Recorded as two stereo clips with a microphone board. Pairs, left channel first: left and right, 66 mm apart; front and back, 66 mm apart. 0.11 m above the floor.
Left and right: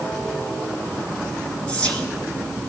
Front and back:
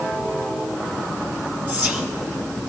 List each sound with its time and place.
1.7 s whispering: 145° left, 1.5 m